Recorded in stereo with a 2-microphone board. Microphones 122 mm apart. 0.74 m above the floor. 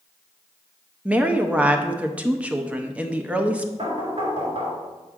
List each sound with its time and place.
1.1 s a woman speaking: 10° right (ahead or behind), 0.6 m
3.8 s knocking: 55° right (ahead or behind), 2 m